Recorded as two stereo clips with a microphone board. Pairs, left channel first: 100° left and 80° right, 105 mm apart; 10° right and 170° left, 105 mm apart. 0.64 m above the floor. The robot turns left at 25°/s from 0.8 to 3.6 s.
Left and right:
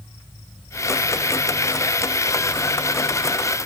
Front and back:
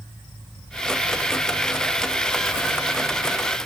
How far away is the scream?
I don't hear a scream.